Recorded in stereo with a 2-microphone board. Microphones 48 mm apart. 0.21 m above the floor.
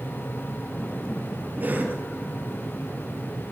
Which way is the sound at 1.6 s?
40° right (ahead or behind).